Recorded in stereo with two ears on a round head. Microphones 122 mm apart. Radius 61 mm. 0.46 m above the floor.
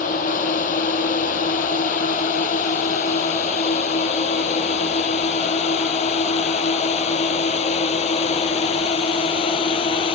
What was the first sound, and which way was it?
A drone, 60° left (ahead or behind).